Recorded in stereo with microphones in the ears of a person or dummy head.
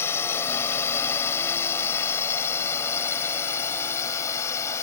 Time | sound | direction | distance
0.0 | a drone | 20° left (ahead or behind) | ?